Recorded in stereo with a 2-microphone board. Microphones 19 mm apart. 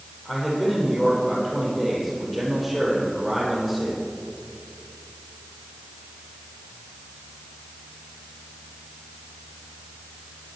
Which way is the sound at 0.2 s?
5° right (ahead or behind).